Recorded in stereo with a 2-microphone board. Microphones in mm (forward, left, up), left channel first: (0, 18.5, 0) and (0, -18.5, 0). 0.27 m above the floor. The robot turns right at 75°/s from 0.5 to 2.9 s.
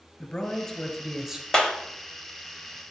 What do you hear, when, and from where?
0.2 s a man speaking: 130° left, 1.6 m; by 1.4 s 160° right, 1.6 m
1.5 s a clap: 15° left (ahead or behind), 1.1 m; by 1.8 s 20° left (ahead or behind), 1.1 m